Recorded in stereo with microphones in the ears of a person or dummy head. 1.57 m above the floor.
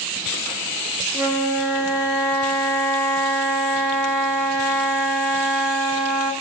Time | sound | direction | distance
1.1 | a flute | 10° right (ahead or behind) | 0.7 m